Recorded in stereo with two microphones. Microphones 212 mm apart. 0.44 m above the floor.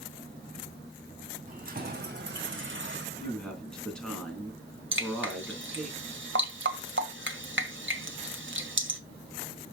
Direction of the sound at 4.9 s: 65° right (ahead or behind).